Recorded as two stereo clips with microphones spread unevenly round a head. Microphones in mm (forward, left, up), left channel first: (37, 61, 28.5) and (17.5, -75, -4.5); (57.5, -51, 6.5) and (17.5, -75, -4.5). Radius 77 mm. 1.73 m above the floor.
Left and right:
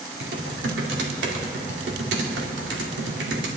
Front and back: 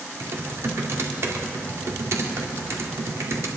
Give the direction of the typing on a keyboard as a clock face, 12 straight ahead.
4 o'clock.